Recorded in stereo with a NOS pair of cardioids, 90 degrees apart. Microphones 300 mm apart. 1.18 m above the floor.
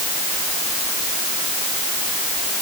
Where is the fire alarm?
I don't hear a fire alarm.